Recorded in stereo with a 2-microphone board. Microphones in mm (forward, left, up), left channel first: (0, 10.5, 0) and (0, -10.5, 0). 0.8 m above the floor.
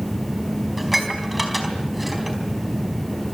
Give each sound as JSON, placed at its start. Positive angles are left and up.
{"t": 0.8, "sound": "dishes clattering", "side_deg": -5, "distance_m": 4.0}